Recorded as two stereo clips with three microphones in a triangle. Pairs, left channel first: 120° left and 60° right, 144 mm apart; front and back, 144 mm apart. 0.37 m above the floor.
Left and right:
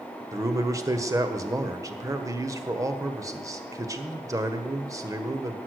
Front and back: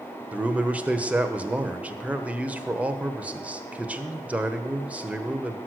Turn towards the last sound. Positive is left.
turn(degrees=-110)